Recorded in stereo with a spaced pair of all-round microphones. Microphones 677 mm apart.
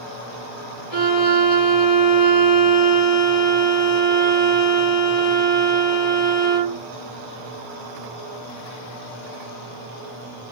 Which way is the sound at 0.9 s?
60° left (ahead or behind).